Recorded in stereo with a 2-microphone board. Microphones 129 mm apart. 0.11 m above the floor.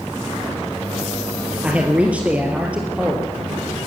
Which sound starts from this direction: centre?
A man speaking, at 1.6 s.